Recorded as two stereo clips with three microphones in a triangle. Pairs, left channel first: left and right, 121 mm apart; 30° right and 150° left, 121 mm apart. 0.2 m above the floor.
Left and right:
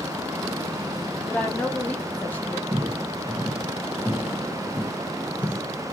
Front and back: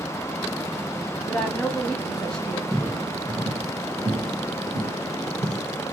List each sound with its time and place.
1.3 s a woman speaking: 40° left, 1.0 m
2.7 s footsteps: 120° right, 1.0 m; by 5.6 s 165° left, 1.6 m